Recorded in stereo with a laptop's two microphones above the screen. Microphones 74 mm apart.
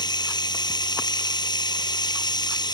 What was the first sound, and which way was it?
Running water, 80° left.